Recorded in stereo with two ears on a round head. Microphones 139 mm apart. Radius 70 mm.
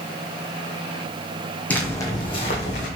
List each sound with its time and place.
1.7 s footsteps: 10° left (ahead or behind), 1.0 m; by 2.9 s 50° left (ahead or behind), 1.2 m